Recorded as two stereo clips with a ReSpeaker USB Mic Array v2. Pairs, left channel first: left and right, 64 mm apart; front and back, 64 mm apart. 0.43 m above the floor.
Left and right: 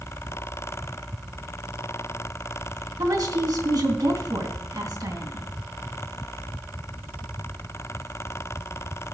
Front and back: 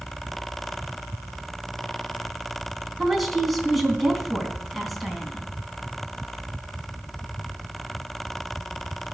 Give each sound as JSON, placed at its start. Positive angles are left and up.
{"t": 3.0, "sound": "a woman speaking", "azimuth_deg": -90, "distance_m": 3.5}